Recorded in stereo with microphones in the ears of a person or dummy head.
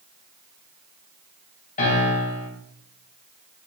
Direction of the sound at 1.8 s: 40° left (ahead or behind).